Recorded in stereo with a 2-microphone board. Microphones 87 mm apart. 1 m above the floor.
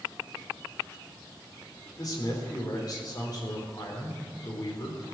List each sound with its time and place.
2.0 s a man speaking: 45° left (ahead or behind), 4 m